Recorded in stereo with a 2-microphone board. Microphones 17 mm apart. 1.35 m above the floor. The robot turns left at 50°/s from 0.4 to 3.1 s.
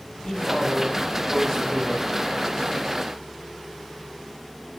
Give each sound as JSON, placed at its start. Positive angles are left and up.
{"t": 0.2, "sound": "a woman speaking", "azimuth_deg": 80, "distance_m": 4.0}